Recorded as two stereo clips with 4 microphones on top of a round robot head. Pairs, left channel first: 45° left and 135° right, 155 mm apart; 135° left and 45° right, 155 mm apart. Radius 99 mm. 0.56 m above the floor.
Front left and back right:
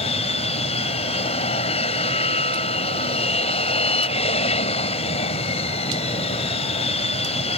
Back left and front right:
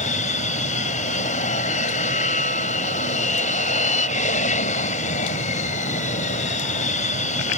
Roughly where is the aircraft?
Left.